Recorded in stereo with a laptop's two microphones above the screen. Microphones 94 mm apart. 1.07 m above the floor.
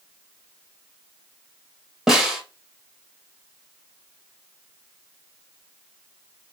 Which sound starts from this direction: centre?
A snare drum, at 2.1 s.